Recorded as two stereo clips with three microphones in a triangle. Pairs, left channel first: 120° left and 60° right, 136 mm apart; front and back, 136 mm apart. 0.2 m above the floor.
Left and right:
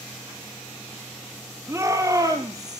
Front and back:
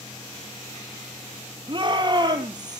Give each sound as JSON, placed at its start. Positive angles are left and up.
{"t": 1.7, "sound": "a shout", "azimuth_deg": -130, "distance_m": 5.0}